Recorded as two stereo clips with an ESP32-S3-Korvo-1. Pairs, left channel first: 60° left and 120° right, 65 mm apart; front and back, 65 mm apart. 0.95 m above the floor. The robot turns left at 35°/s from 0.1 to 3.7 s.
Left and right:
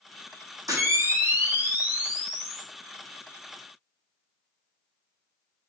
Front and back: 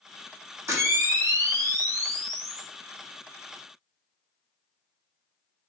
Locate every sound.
0.7 s a camera shutter: 140° right, 0.7 m; by 2.7 s 150° left, 0.7 m